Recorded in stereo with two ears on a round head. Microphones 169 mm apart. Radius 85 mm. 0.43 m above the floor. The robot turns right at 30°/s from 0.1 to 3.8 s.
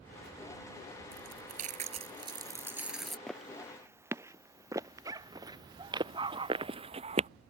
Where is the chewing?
60° right; by 3.2 s straight ahead.